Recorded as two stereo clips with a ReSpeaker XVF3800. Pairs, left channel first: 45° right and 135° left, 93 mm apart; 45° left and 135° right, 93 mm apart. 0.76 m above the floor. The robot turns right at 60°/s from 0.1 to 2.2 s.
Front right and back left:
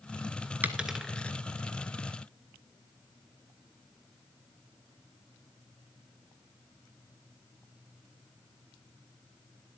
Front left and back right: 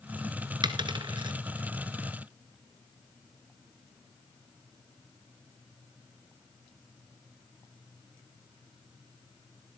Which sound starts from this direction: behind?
A dropped coin, at 0.6 s.